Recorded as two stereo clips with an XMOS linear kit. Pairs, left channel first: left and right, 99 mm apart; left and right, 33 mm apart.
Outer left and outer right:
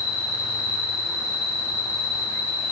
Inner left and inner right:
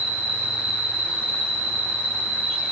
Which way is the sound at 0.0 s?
25° right (ahead or behind).